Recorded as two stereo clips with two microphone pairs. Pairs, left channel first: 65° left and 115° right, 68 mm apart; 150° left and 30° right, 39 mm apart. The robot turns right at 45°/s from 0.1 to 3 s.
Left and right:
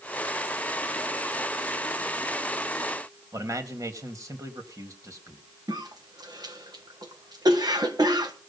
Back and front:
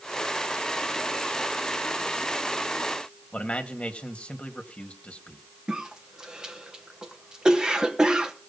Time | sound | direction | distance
3.3 | a man speaking | 150° right | 1.8 m
5.7 | a cough | 100° right | 1.4 m